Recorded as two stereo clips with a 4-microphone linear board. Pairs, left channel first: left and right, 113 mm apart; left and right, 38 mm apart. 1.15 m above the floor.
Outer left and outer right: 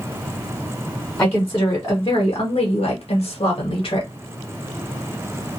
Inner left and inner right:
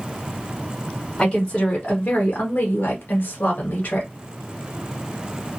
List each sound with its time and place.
1.2 s a woman speaking: 15° left (ahead or behind), 1.0 m; by 4.1 s 45° left (ahead or behind), 1.0 m